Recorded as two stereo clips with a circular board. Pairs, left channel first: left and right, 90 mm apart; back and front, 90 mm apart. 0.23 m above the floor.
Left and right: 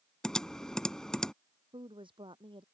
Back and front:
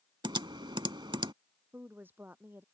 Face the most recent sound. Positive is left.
turn(degrees=-70)